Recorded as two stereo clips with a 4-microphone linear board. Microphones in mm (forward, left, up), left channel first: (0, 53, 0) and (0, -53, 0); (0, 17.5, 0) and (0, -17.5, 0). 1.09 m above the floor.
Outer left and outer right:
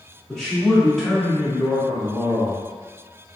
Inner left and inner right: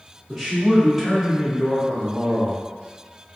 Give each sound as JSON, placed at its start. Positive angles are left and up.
{"t": 0.3, "sound": "a man speaking", "side_deg": 5, "distance_m": 1.2}